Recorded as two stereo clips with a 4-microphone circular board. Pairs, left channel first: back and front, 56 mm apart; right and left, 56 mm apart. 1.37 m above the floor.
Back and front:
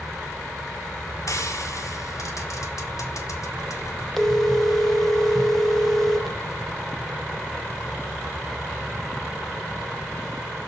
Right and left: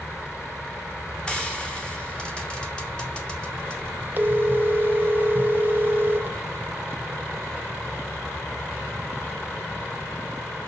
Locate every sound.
1.3 s frying: 165° right, 2 m
4.2 s a phone ringing: 100° left, 0.8 m